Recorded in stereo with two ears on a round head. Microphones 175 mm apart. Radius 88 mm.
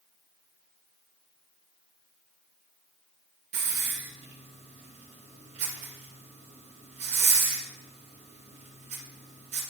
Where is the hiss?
35° right (ahead or behind), 2 m.